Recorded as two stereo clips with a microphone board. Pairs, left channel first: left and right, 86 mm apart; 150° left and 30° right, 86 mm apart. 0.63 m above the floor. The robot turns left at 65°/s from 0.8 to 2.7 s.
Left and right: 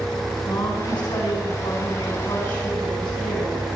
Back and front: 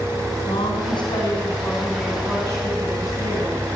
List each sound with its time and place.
0.5 s a woman speaking: 135° left, 5.5 m; by 3.6 s 10° left, 5.5 m